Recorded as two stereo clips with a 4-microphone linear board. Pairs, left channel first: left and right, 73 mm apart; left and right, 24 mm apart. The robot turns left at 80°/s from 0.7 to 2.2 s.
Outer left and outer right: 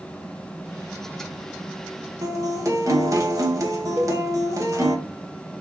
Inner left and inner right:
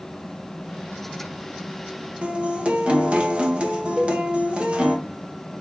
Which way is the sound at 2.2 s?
50° right (ahead or behind).